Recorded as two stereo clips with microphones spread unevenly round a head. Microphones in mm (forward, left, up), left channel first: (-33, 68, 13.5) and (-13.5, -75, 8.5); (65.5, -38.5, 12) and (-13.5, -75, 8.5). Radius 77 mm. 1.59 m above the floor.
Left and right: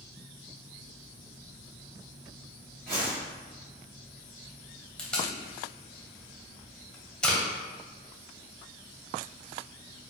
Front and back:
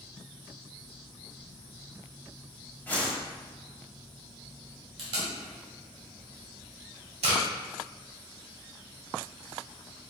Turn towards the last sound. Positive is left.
turn(degrees=180)